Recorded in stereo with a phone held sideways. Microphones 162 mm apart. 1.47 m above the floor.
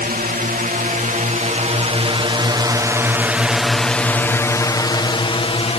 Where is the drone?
60° right (ahead or behind); by 5.8 s 35° left (ahead or behind).